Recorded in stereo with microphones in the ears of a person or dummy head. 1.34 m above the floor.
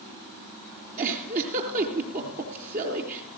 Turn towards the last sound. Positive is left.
turn(degrees=-50)  # may be behind; listen again after turning